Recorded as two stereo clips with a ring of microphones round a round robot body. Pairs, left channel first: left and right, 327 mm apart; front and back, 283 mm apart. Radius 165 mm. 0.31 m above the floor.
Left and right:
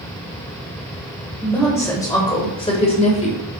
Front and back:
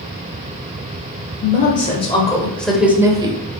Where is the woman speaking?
10° left, 1.5 m; by 3.4 s 130° left, 1.4 m.